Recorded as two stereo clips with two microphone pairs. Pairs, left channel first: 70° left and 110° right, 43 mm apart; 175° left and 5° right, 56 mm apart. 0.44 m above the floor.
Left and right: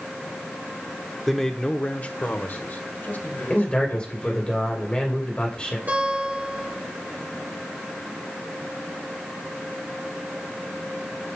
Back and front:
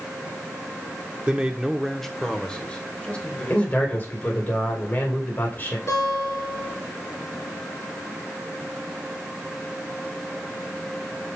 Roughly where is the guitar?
Behind.